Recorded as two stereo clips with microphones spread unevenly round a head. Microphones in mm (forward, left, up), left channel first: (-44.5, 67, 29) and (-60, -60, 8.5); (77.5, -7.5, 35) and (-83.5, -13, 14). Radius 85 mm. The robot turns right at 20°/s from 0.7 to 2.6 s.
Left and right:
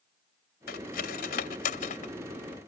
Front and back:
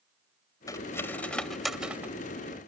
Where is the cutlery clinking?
70° left; by 2.7 s 110° left.